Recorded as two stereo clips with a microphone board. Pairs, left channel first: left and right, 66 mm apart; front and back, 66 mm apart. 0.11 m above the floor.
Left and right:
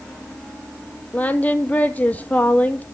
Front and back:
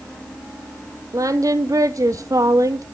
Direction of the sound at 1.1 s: 155° left.